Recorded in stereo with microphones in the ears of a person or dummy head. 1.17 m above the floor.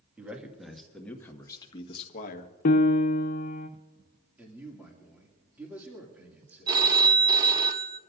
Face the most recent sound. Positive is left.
turn(degrees=-25)  # may be behind; listen again after turning